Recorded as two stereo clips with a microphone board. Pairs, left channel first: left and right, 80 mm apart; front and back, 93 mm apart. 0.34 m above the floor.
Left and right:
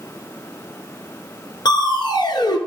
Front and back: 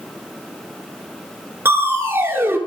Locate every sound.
1.6 s crushing: 115° left, 1.2 m